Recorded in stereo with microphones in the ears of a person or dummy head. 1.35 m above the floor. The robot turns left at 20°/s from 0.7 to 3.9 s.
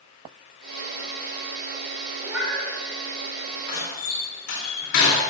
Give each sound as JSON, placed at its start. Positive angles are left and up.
{"t": 2.2, "sound": "a cat meowing", "side_deg": -10, "distance_m": 3.5}
{"t": 3.7, "sound": "a door slam", "side_deg": 55, "distance_m": 2.5}